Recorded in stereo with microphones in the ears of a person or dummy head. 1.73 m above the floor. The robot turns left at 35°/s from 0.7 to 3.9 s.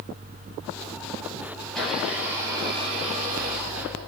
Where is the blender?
15° left, 9 m; by 4.1 s 65° right, 9 m.